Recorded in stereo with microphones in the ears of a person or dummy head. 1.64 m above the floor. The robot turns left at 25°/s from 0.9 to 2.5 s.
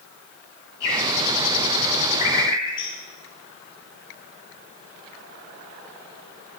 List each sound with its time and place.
0.8 s a bird: 70° left (ahead or behind), 7.5 m; by 3.0 s 30° left (ahead or behind), 7.5 m